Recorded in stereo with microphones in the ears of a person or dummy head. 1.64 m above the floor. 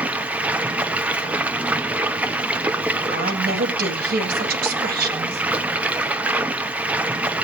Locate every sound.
0.0 s running water: 15° right (ahead or behind), 0.8 m
3.1 s a woman speaking: 60° right (ahead or behind), 3.5 m